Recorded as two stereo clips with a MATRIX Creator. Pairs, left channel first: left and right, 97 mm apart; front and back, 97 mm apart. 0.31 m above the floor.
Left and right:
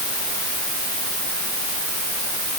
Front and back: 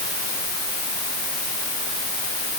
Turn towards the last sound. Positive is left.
No sound to turn to.